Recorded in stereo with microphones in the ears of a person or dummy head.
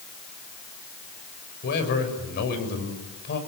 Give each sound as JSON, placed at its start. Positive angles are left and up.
{"t": 1.6, "sound": "a man speaking", "side_deg": 55, "distance_m": 6.0}